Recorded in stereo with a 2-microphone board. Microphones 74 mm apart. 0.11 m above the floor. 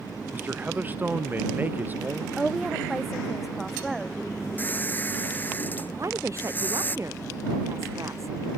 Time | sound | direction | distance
0.3 | a man speaking | 25° right (ahead or behind) | ?
2.4 | a woman speaking | 5° right (ahead or behind) | ?
4.6 | a squeak | 25° left (ahead or behind) | ?
6.0 | a woman speaking | 40° right (ahead or behind) | ?